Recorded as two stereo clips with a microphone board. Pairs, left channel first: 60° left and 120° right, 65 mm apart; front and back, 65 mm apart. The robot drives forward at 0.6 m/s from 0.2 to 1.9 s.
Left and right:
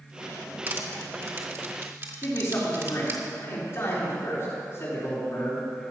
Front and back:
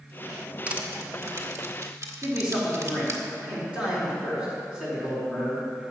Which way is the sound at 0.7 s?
135° right.